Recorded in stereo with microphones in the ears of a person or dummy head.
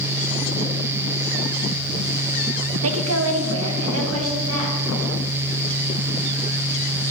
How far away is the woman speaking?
About 0.8 m.